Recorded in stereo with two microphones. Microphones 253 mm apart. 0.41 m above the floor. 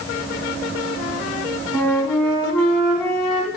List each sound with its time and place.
1.7 s a flute: centre (ahead or behind), 3.5 m